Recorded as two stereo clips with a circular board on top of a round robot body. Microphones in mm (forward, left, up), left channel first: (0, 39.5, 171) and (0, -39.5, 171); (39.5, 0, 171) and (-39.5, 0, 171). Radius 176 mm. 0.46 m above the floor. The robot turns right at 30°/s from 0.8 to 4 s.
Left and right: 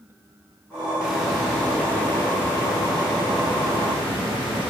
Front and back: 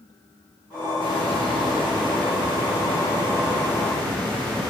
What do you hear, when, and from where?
1.0 s a hiss: 15° right, 3 m; by 4.7 s 75° left, 3 m